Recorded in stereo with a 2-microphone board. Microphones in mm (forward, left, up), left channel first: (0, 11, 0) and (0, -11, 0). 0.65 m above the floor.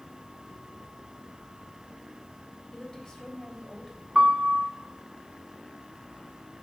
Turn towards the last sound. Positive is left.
turn(degrees=-35)  # may be behind; listen again after turning